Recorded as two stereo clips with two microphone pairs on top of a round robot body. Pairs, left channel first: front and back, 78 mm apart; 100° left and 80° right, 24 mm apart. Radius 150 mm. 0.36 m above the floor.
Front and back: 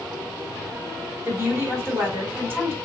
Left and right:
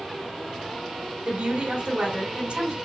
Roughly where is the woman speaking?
Behind right.